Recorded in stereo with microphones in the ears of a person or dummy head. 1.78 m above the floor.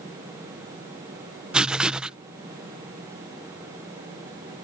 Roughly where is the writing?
Centre.